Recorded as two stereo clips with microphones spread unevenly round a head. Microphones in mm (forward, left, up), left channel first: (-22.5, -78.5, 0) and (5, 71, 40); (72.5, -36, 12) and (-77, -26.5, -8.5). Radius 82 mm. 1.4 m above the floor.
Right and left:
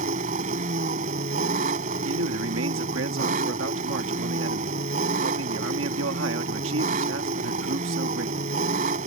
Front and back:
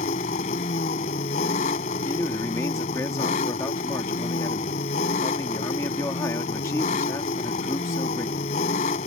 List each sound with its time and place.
0.0 s an engine running: 40° left
2.0 s a man speaking: 70° left